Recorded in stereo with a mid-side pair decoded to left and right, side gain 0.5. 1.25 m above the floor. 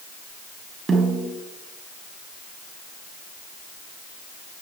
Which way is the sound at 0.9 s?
30° right.